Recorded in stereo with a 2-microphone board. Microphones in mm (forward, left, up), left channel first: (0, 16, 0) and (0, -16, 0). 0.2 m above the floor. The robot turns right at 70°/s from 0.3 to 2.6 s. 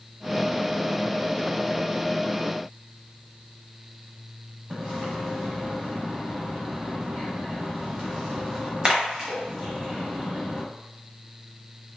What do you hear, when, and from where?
4.7 s a splash: 25° right (ahead or behind), 1.0 m